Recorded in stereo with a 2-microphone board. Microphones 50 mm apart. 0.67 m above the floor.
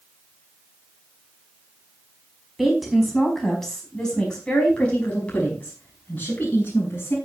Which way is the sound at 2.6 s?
Centre (ahead or behind).